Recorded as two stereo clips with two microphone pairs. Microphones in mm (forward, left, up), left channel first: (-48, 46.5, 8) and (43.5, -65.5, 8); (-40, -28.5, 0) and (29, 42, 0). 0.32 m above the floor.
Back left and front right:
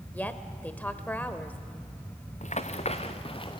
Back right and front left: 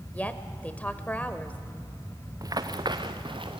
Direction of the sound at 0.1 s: 175° right.